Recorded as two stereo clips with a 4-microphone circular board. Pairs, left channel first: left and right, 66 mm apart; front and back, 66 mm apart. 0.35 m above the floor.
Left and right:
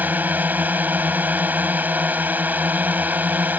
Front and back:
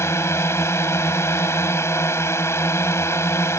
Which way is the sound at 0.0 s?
35° right.